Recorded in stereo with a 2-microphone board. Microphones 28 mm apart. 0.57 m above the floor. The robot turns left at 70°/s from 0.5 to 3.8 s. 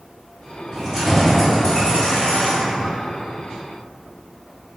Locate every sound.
0.7 s keys jangling: 150° right, 1.8 m; by 2.9 s 60° left, 1.8 m